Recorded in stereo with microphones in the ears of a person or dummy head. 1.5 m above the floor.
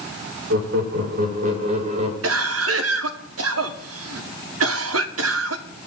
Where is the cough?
75° right (ahead or behind), 1.3 m.